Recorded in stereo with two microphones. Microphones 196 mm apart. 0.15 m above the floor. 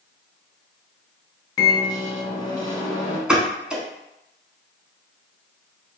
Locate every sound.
1.6 s a microwave: 20° left (ahead or behind), 0.9 m
3.3 s a pop: 5° right (ahead or behind), 0.6 m